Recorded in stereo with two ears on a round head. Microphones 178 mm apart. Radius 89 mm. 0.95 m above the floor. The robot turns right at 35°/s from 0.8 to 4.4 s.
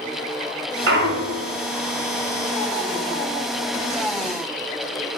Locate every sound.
0.9 s a clunk: 65° right (ahead or behind), 2.5 m; by 1.5 s 75° right (ahead or behind), 2.5 m